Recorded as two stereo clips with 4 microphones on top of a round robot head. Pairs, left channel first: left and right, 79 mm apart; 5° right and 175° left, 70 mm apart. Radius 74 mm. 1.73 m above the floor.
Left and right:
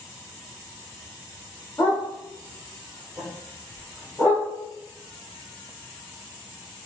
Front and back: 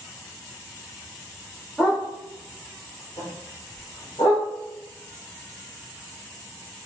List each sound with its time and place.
1.8 s a dog barking: 75° left, 1.3 m; by 4.5 s 10° left, 2 m